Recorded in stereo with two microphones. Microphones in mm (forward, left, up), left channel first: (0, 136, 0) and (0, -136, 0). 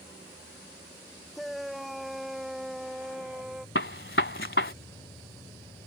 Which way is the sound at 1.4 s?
Centre (ahead or behind).